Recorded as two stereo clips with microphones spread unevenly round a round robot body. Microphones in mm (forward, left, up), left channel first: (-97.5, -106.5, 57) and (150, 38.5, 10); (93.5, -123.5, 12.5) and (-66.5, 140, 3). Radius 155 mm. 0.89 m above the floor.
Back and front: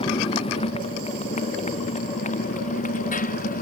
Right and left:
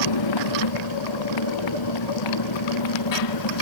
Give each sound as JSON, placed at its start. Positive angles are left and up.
{"t": 0.0, "sound": "a motorcycle", "azimuth_deg": -80}